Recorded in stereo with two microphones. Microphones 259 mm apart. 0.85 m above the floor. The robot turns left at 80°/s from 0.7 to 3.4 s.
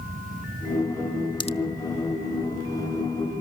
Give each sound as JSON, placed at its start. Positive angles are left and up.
{"t": 1.4, "sound": "a pop", "side_deg": 15, "distance_m": 0.9}